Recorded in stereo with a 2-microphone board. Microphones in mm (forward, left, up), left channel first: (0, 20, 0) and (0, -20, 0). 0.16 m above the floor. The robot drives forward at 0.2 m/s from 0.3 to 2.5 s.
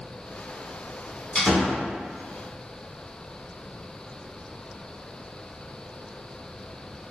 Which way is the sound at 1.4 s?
15° left (ahead or behind).